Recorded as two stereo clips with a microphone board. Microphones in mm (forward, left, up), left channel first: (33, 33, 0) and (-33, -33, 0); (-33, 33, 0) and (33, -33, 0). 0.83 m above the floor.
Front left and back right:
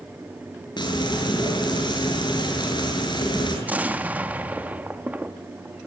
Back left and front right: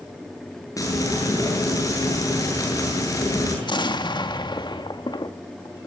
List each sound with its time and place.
0.8 s frying: 80° left, 8.5 m
3.6 s an explosion: 155° left, 1.6 m